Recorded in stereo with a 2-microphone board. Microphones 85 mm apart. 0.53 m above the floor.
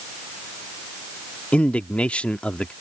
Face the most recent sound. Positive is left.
turn(degrees=15)  # may be behind; listen again after turning